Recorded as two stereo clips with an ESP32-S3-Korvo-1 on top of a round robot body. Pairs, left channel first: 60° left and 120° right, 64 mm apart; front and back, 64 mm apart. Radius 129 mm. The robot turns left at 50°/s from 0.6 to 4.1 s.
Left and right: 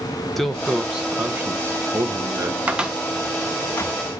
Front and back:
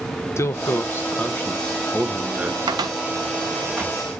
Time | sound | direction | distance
0.4 | a man speaking | 25° right | 1.1 m
2.7 | a cupboard door | 170° left | 0.8 m